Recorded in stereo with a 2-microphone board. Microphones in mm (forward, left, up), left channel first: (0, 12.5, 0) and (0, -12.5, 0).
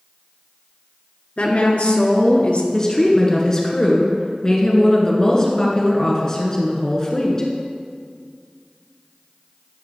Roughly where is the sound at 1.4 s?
Left.